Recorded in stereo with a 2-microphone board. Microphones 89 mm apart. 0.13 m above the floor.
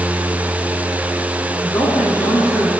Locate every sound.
1.6 s a woman speaking: 35° left (ahead or behind), 5.5 m